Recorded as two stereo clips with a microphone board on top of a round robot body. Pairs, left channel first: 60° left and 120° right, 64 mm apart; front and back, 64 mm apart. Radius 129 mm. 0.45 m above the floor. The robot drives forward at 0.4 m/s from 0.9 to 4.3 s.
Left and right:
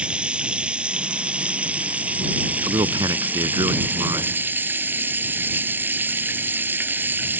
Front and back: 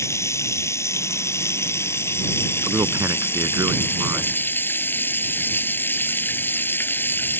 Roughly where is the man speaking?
Behind right.